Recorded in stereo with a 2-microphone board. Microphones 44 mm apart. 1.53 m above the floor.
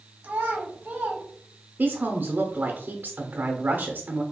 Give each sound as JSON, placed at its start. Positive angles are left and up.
{"t": 0.2, "sound": "a child speaking", "side_deg": -50, "distance_m": 1.0}
{"t": 1.8, "sound": "a woman speaking", "side_deg": -45, "distance_m": 0.7}